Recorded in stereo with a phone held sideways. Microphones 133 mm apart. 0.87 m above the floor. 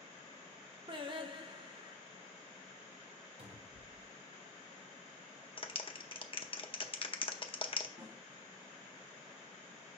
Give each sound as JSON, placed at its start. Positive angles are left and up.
{"t": 0.9, "sound": "singing", "side_deg": -40, "distance_m": 0.8}
{"t": 3.4, "sound": "a cupboard door", "side_deg": -45, "distance_m": 1.1}
{"t": 5.6, "sound": "a clap", "side_deg": 40, "distance_m": 0.7}
{"t": 8.0, "sound": "a snare drum", "side_deg": -50, "distance_m": 1.9}